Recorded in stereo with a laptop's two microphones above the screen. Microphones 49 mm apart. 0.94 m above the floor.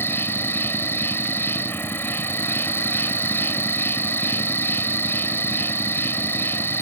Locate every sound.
0.0 s an insect: 50° left (ahead or behind)